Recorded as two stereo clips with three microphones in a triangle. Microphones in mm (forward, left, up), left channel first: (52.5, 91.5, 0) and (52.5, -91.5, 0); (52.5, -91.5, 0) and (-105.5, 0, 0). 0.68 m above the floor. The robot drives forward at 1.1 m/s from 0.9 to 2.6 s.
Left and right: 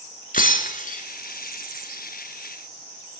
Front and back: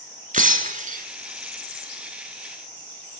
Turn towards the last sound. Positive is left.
turn(degrees=165)